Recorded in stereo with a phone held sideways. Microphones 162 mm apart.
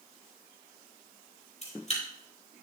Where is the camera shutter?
45° left (ahead or behind), 5.5 m.